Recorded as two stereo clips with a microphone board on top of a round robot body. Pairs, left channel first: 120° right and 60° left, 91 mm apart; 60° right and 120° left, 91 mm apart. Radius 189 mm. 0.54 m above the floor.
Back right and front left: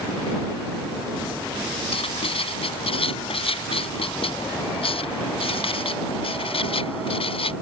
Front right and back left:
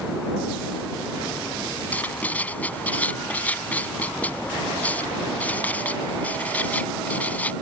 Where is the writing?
135° right.